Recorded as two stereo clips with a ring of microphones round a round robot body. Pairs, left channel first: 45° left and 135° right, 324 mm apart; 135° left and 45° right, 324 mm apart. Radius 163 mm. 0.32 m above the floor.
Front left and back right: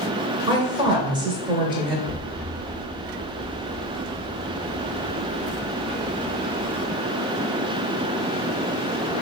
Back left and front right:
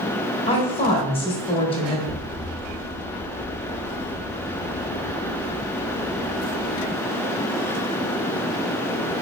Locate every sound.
0.5 s a woman speaking: 175° left, 0.9 m
2.1 s an explosion: 80° right, 1.3 m